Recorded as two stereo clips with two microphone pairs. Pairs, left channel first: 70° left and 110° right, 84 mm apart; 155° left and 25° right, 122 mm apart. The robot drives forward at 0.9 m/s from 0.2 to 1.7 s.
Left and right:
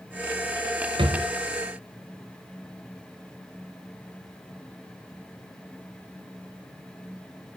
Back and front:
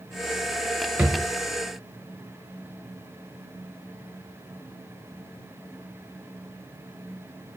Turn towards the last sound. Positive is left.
turn(degrees=-130)